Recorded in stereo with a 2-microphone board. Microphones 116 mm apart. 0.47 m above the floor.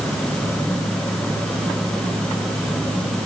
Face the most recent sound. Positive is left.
No sound to turn to.